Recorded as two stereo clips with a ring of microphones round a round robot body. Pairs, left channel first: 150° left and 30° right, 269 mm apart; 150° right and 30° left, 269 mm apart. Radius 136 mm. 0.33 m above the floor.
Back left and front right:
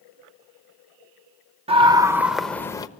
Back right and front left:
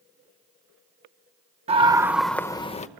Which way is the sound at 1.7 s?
5° left.